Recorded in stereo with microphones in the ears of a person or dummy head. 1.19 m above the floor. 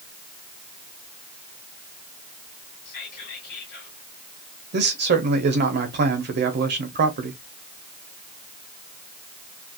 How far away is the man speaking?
About 0.8 m.